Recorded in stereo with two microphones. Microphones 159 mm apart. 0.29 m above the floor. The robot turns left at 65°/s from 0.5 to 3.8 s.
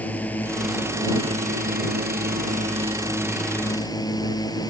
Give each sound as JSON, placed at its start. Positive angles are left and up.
{"t": 0.0, "sound": "a drone", "azimuth_deg": 10}